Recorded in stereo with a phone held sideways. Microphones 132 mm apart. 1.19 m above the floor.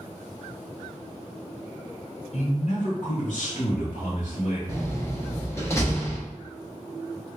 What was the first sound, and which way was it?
A man speaking, 55° left (ahead or behind).